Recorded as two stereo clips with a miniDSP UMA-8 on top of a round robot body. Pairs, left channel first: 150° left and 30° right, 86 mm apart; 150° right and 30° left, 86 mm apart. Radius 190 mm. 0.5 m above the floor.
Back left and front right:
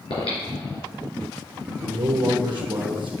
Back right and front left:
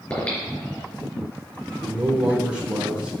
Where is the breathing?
135° left, 3.5 m.